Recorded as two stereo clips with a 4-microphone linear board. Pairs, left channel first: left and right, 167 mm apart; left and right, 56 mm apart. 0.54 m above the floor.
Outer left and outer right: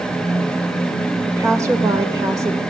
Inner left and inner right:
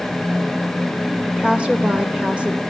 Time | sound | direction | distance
1.3 | a woman speaking | 20° right (ahead or behind) | 1.6 m